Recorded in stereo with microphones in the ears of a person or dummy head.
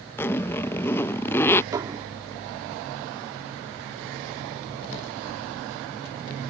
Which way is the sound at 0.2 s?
15° left (ahead or behind).